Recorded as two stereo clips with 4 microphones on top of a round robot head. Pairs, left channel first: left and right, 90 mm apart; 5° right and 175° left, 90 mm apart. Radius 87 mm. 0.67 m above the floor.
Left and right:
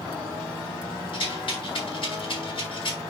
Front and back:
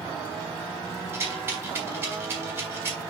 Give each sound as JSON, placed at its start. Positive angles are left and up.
{"t": 1.1, "sound": "a rattle", "azimuth_deg": 110, "distance_m": 4.5}